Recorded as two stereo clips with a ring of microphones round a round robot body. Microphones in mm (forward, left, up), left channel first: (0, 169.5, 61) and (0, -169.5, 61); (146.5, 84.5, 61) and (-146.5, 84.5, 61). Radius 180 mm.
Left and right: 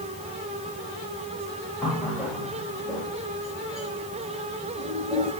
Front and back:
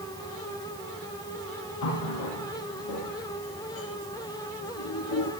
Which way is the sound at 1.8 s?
Straight ahead.